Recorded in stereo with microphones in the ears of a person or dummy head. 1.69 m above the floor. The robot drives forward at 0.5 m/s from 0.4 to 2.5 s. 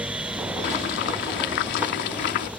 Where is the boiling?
50° left (ahead or behind).